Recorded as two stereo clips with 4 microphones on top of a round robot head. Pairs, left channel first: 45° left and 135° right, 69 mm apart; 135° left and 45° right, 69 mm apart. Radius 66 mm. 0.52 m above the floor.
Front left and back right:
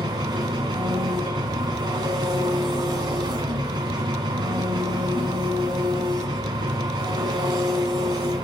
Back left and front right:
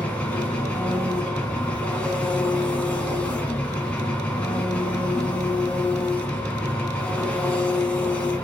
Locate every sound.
0.0 s an engine running: 155° right, 1.7 m